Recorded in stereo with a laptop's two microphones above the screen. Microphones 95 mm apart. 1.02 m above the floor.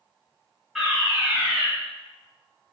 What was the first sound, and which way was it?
A fire alarm, 5° right (ahead or behind).